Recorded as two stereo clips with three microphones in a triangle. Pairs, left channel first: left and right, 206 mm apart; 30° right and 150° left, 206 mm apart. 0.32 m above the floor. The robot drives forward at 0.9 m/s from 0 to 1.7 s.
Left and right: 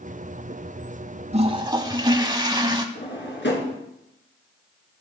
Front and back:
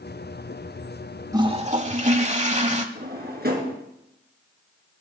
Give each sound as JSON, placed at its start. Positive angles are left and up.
{"t": 1.3, "sound": "a toilet flushing", "azimuth_deg": -140, "distance_m": 0.6}
{"t": 3.0, "sound": "a drawer", "azimuth_deg": 115, "distance_m": 2.0}